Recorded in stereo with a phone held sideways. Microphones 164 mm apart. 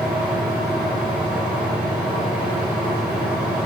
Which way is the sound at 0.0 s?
5° right (ahead or behind).